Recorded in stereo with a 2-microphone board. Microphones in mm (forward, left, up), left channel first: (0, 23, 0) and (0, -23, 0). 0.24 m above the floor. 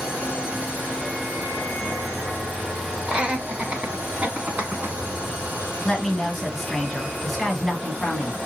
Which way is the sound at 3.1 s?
25° right (ahead or behind).